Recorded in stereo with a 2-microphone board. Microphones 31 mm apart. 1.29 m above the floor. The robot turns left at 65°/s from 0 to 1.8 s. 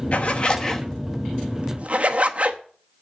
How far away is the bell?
No bell in this recording.